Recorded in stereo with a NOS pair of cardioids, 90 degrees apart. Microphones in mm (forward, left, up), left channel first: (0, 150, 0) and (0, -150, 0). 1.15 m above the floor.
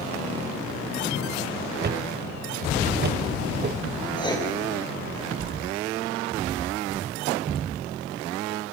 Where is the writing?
15° left, 6 m.